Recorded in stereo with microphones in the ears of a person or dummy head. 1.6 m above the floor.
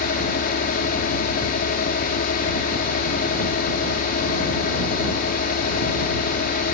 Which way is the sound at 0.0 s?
60° left (ahead or behind).